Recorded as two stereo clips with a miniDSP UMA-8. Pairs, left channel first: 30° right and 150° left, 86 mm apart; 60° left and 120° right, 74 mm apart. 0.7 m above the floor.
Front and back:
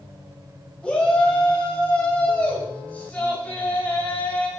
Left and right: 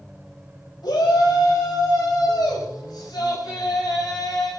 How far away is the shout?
About 4.5 m.